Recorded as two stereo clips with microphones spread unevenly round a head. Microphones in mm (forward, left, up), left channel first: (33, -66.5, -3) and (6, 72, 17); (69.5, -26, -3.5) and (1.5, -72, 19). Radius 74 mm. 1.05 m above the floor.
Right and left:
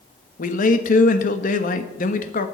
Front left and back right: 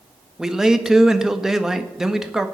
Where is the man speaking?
55° right, 1.5 m.